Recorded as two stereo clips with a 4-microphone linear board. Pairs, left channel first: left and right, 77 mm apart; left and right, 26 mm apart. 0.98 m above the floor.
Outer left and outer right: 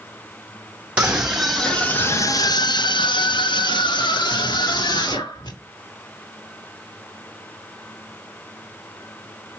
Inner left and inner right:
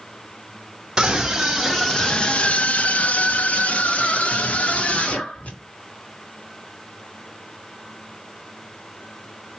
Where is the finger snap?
I don't hear a finger snap.